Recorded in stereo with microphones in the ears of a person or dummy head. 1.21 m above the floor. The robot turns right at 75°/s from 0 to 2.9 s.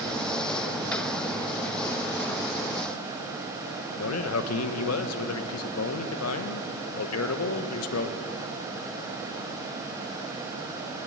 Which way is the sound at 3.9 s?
70° left (ahead or behind).